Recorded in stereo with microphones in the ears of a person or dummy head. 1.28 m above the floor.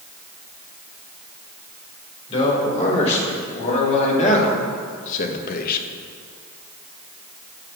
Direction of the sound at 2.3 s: 35° left (ahead or behind).